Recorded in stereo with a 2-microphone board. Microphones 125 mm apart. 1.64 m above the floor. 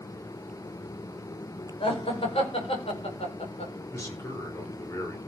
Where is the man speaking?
25° left (ahead or behind), 5 m.